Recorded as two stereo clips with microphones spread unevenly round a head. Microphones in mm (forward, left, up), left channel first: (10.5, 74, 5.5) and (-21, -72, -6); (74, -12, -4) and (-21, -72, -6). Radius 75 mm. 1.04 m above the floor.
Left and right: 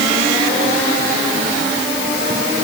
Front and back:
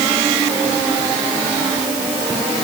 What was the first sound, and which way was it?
Only background noise.